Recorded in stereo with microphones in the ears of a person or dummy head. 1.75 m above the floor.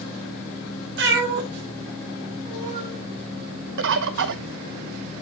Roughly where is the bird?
Right.